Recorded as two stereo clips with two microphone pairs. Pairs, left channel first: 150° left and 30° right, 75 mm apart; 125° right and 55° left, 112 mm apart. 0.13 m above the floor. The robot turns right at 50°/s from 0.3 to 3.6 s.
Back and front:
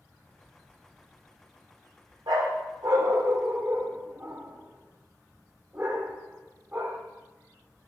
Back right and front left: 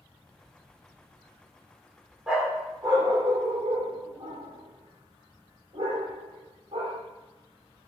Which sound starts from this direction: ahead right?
A dog barking, at 2.3 s.